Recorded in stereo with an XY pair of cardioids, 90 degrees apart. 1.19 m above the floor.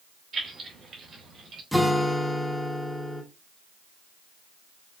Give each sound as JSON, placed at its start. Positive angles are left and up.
{"t": 0.3, "sound": "keys jangling", "azimuth_deg": -60, "distance_m": 2.0}
{"t": 1.7, "sound": "a guitar", "azimuth_deg": 0, "distance_m": 1.0}